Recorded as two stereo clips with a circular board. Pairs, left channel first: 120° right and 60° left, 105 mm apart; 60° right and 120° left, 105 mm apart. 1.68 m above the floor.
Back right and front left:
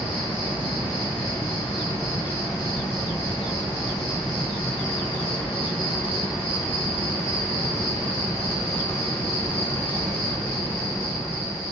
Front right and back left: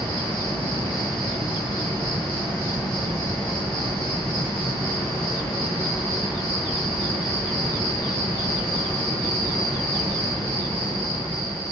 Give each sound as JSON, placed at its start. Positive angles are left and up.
{"t": 0.0, "sound": "an insect", "azimuth_deg": -120, "distance_m": 1.6}